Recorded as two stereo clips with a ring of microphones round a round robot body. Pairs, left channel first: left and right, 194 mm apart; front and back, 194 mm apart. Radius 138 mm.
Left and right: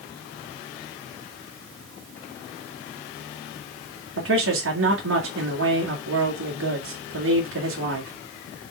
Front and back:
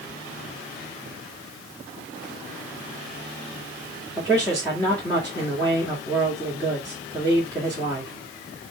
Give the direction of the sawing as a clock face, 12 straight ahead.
No sawing in this recording.